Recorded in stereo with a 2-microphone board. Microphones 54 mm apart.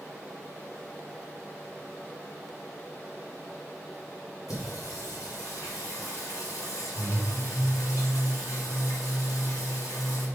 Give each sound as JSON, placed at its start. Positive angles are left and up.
{"t": 4.5, "sound": "singing", "side_deg": 85, "distance_m": 2.5}